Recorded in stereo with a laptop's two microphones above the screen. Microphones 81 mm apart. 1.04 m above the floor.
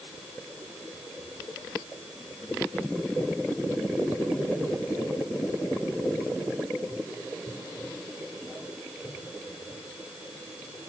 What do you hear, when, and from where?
Only background noise.